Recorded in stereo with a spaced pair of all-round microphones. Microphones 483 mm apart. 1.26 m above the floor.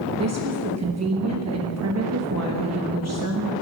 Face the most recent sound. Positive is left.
turn(degrees=-30)  # may be behind; listen again after turning